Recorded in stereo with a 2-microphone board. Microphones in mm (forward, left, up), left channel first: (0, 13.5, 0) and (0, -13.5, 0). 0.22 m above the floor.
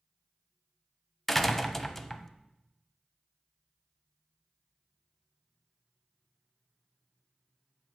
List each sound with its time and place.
1.3 s a door slam: 10° left (ahead or behind), 0.8 m